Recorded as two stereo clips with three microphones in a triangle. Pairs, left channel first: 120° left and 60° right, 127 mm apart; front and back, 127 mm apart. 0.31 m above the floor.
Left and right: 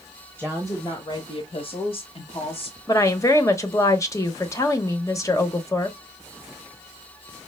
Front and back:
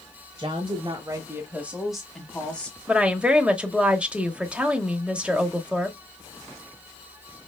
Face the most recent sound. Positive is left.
turn(degrees=110)